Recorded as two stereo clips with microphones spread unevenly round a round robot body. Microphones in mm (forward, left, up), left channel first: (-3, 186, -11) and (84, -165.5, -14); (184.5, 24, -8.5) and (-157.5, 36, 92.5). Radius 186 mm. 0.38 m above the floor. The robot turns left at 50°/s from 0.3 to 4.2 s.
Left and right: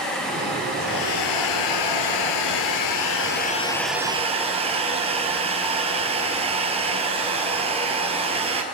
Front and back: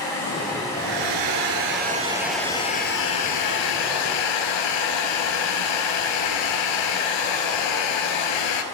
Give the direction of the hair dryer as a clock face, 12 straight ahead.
6 o'clock.